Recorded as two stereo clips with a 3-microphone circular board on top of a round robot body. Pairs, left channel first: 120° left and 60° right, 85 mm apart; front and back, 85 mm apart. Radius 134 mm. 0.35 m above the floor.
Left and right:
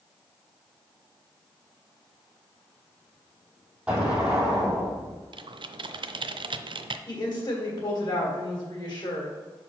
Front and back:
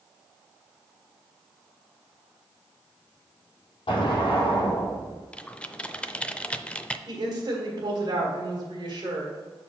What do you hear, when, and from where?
3.9 s an explosion: 20° left, 2.5 m
5.3 s typing on a keyboard: 75° right, 0.6 m
7.1 s a woman speaking: 150° left, 2.5 m